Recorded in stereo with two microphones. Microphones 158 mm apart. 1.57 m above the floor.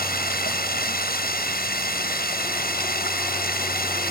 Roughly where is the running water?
Left.